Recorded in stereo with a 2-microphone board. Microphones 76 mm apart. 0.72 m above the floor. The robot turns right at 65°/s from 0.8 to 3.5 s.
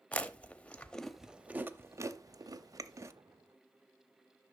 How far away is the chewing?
About 0.6 m.